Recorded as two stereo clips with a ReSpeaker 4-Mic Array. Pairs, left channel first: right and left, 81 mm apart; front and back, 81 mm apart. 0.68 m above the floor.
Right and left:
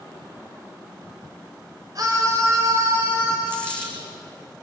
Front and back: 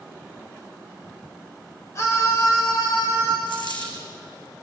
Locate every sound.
1.9 s a scream: 50° left, 2.5 m; by 3.4 s 30° left, 3.5 m
3.5 s a dropped coin: 15° right, 4.5 m